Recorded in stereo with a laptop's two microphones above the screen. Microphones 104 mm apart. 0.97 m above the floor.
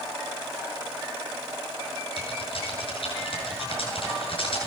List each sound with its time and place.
2.2 s typing on a keyboard: 60° left (ahead or behind), 8 m